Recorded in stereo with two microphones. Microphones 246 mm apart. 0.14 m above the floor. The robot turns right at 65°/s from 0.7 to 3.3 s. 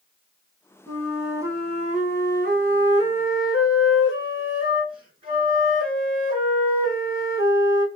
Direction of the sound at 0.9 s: 165° left.